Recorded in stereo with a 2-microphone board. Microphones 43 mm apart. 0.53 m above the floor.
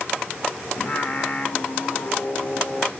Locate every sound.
0.8 s singing: 45° left (ahead or behind), 1.0 m